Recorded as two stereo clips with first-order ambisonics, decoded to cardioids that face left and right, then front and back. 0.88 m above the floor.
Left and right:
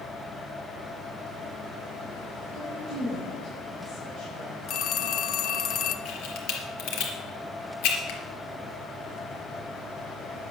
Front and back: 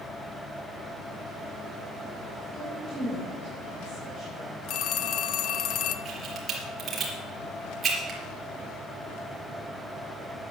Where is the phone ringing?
40° left, 0.7 m.